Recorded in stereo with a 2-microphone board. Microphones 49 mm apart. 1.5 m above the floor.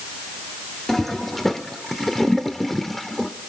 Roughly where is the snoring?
I don't hear snoring.